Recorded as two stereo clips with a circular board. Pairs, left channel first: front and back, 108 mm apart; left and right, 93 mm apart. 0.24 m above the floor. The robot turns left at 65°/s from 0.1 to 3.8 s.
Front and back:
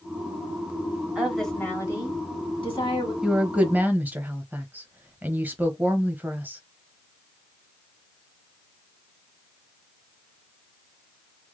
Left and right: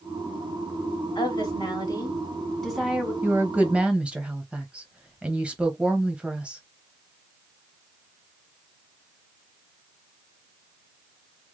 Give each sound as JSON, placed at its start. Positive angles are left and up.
{"t": 1.1, "sound": "a woman speaking", "azimuth_deg": 100, "distance_m": 2.5}
{"t": 3.2, "sound": "a woman speaking", "azimuth_deg": -105, "distance_m": 1.0}